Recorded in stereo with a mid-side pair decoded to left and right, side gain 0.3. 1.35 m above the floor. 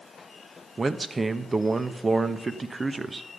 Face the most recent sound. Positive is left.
turn(degrees=-35)